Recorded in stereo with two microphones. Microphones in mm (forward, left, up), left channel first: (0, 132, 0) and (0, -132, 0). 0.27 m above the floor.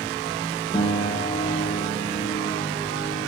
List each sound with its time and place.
0.7 s a piano: 15° left (ahead or behind), 1.0 m